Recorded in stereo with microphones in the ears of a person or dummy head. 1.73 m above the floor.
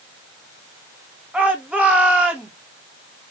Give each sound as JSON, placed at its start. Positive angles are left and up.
{"t": 1.3, "sound": "a shout", "side_deg": 0, "distance_m": 1.4}